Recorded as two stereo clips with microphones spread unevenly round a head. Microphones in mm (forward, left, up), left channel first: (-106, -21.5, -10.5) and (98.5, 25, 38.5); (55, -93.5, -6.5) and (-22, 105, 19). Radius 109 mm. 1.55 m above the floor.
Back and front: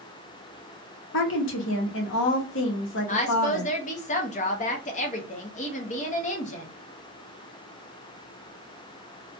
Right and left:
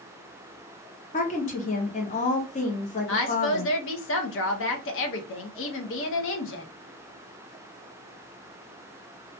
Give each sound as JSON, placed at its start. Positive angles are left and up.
{"t": 1.1, "sound": "a woman speaking", "azimuth_deg": -130, "distance_m": 0.9}
{"t": 3.1, "sound": "a woman speaking", "azimuth_deg": -105, "distance_m": 0.6}